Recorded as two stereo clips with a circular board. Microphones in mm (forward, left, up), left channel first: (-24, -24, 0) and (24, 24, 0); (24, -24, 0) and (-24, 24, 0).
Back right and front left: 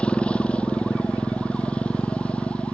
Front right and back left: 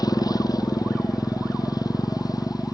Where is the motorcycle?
60° right.